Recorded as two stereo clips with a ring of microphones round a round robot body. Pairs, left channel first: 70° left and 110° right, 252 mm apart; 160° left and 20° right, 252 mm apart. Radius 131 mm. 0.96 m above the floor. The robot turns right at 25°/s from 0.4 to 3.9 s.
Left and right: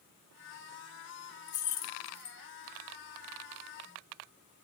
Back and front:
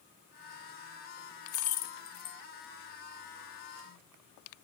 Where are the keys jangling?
115° left, 0.6 m; by 2.4 s 140° left, 0.6 m.